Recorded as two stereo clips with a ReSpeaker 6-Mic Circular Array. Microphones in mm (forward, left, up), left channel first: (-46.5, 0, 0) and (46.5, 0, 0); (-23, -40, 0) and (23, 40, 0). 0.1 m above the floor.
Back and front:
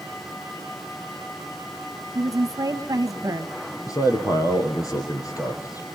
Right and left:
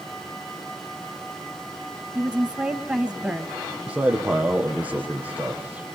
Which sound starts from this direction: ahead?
A woman speaking, at 2.1 s.